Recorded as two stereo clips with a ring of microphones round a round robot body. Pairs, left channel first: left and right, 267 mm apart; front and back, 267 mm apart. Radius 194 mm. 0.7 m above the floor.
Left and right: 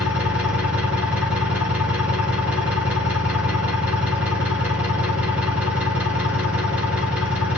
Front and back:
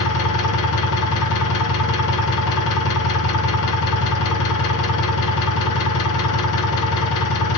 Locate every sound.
0.0 s an engine running: 5° right, 2 m